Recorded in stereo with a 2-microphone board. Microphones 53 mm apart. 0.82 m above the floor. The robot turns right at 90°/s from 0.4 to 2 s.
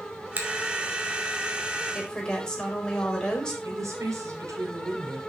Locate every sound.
0.4 s a finger snap: 35° right (ahead or behind), 2.5 m; by 0.5 s 45° right (ahead or behind), 2.5 m
1.9 s a woman speaking: 10° left (ahead or behind), 4.5 m; by 3.5 s 15° left (ahead or behind), 4.5 m
3.6 s a woman speaking: 75° right (ahead or behind), 3.5 m